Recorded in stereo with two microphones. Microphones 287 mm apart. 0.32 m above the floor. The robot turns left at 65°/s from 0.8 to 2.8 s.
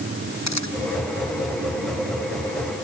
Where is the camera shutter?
70° left (ahead or behind).